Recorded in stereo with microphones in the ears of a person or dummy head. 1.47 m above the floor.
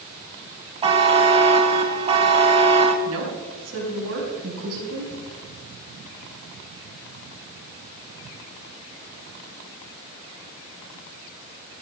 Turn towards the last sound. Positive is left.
turn(degrees=-80)